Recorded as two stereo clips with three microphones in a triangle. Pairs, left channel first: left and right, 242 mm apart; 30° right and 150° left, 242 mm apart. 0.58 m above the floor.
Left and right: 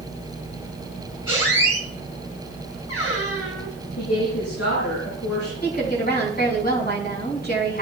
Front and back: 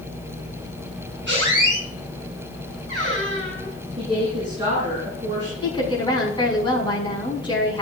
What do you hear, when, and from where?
1.3 s a squeak: 110° left, 4 m
4.0 s a woman speaking: 80° left, 6.5 m
5.6 s a woman speaking: 40° left, 5.5 m